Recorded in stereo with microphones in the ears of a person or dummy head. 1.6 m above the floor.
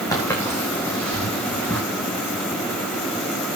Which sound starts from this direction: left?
Footsteps, at 0.1 s.